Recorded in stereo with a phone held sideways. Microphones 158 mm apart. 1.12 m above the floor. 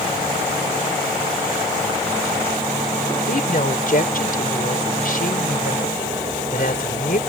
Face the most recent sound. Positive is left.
turn(degrees=65)  # may be behind; listen again after turning